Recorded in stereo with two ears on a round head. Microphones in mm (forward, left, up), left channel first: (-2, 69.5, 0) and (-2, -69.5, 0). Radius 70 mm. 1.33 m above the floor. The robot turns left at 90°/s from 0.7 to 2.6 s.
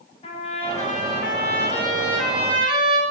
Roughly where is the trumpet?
Behind left.